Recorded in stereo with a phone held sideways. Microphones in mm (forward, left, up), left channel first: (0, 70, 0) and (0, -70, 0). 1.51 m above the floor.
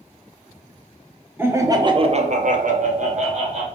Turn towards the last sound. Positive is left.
turn(degrees=-50)  # may be behind; listen again after turning